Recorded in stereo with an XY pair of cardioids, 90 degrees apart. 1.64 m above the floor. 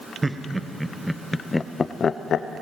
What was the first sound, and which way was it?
Laughter, 20° right.